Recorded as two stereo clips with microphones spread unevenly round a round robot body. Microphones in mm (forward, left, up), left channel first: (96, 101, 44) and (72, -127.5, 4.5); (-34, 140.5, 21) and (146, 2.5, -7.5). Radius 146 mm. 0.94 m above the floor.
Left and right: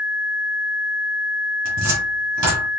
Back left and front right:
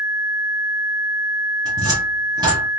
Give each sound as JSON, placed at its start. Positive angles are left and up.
{"t": 1.6, "sound": "a cupboard door", "azimuth_deg": -115, "distance_m": 1.4}